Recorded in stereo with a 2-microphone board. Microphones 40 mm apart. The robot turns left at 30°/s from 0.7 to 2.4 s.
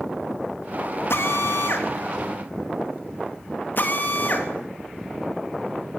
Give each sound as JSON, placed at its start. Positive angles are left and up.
{"t": 1.1, "sound": "a drill", "side_deg": 85, "distance_m": 3.0}